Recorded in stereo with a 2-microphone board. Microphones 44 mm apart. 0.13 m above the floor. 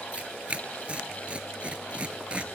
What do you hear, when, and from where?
0.1 s tearing paper: 30° right (ahead or behind), 0.5 m